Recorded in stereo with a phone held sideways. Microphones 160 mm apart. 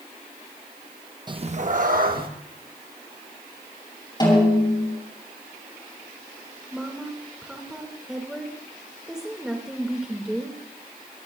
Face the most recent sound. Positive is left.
turn(degrees=-5)  # may be behind; listen again after turning